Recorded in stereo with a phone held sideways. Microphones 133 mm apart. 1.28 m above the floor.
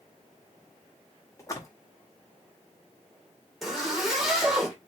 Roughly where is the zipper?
Centre.